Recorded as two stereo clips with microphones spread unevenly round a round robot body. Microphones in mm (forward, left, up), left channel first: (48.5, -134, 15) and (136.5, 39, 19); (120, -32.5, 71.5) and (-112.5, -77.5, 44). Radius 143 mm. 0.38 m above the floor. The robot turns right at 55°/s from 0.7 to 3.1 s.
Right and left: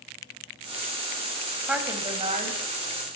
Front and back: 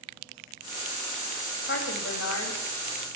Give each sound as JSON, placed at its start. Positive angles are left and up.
{"t": 1.7, "sound": "a woman speaking", "azimuth_deg": -20, "distance_m": 2.0}